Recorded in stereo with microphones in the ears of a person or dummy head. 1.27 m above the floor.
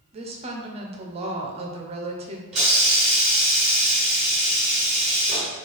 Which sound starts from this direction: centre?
A hiss, at 2.5 s.